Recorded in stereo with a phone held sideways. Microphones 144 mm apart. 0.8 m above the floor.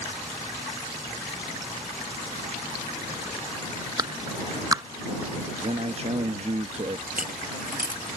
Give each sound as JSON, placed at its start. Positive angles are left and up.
{"t": 4.0, "sound": "a clap", "side_deg": -25}
{"t": 5.6, "sound": "a man speaking", "side_deg": -50}
{"t": 7.1, "sound": "a dropped coin", "side_deg": -80}